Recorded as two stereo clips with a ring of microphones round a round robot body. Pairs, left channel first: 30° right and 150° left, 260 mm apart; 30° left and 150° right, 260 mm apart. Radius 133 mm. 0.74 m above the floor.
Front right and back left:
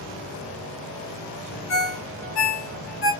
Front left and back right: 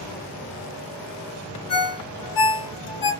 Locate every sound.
1.7 s a ringtone: 15° left, 1.6 m